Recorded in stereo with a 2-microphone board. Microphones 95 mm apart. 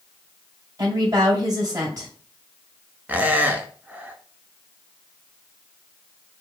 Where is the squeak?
20° right (ahead or behind), 0.7 m.